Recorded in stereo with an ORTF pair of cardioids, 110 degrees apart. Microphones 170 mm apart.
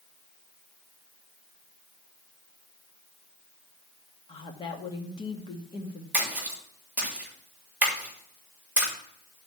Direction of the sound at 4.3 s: 30° left.